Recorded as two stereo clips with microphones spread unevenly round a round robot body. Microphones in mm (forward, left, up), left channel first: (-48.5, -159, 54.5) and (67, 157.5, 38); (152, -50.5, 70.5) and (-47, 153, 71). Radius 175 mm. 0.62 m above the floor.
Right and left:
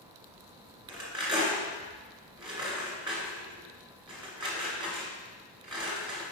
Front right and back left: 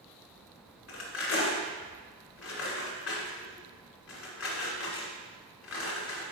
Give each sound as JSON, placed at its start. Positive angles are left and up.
{"t": 0.9, "sound": "cutlery clinking", "azimuth_deg": -5, "distance_m": 1.8}